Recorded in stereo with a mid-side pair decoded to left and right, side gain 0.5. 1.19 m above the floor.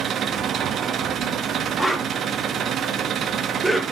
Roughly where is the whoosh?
Ahead.